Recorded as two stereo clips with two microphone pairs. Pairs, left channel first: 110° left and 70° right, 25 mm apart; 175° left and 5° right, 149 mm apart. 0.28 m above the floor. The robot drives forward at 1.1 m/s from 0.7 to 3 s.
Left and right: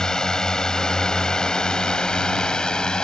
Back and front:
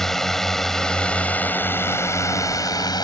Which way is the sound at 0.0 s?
95° left.